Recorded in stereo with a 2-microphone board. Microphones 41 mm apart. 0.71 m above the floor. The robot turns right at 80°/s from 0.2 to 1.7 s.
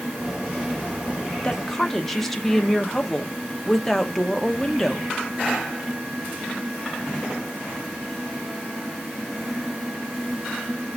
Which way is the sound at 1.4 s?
25° left (ahead or behind).